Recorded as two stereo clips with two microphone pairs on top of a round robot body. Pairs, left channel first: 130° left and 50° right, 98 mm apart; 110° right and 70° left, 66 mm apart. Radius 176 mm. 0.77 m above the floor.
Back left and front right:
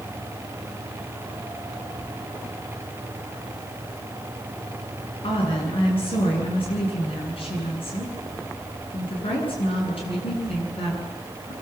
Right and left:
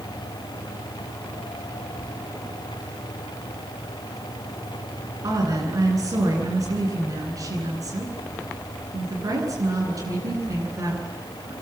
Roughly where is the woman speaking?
Left.